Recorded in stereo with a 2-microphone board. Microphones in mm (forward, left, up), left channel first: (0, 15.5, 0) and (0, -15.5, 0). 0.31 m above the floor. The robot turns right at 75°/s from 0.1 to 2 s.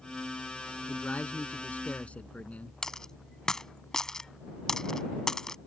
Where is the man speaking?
45° left; by 2.7 s 130° left.